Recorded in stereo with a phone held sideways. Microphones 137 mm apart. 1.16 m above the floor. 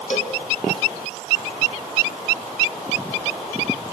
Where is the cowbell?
55° left (ahead or behind), 2 m.